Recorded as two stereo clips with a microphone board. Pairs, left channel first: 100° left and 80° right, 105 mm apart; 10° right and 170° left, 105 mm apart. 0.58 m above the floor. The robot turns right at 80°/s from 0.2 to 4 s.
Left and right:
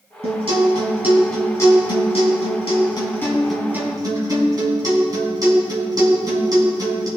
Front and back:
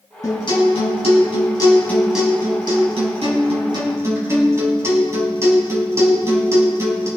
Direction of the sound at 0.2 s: 70° right.